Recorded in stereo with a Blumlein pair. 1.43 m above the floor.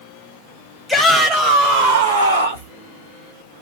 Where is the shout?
Straight ahead, 0.9 m; by 2.7 s 75° right, 0.9 m.